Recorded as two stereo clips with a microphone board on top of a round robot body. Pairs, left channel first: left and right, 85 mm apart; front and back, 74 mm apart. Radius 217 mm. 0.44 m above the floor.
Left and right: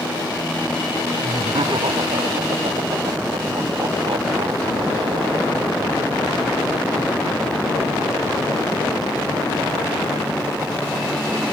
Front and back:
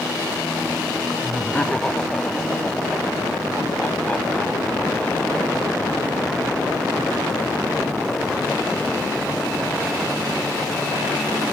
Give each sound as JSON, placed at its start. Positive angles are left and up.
{"t": 1.2, "sound": "laughter", "azimuth_deg": -75}